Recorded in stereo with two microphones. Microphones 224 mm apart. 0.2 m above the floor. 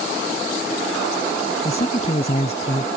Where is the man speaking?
30° left (ahead or behind).